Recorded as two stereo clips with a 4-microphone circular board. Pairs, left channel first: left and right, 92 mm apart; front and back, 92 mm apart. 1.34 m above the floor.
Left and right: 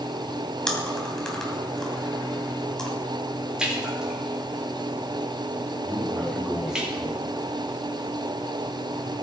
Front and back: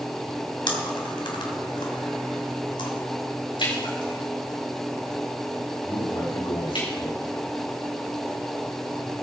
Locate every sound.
0.7 s chewing: 5° left, 2.5 m
3.6 s a splash: 10° right, 4.5 m
5.8 s a man speaking: 10° left, 3.5 m